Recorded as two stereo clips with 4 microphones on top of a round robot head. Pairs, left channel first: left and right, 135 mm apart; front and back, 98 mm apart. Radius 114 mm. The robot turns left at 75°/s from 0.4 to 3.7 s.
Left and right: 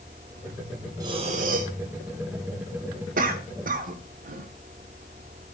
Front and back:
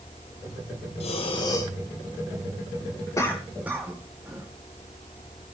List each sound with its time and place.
1.0 s breathing: 25° right, 2 m; by 1.7 s 75° right, 2 m
3.2 s a cough: 65° right, 1.9 m; by 4.5 s 105° right, 1.9 m